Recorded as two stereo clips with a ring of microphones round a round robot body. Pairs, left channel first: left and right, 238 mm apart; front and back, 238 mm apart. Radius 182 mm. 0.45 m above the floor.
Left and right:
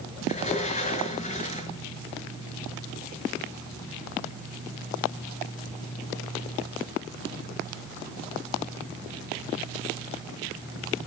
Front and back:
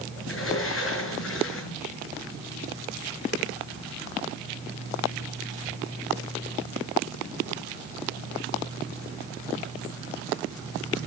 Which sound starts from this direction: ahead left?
A sliding door, at 0.2 s.